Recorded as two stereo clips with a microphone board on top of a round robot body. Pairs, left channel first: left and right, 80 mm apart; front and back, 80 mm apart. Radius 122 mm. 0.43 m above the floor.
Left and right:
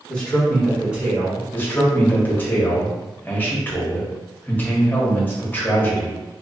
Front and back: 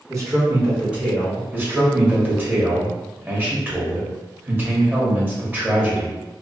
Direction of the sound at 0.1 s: 160° left.